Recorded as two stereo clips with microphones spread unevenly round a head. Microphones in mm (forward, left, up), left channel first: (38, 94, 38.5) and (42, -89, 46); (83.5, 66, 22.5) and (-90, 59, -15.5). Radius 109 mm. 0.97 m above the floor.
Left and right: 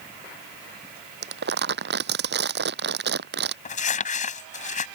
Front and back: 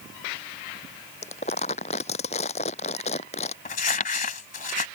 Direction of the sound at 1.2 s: 60° right.